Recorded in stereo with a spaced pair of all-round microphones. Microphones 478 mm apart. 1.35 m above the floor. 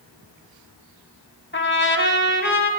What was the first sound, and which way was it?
A trumpet, 25° left (ahead or behind).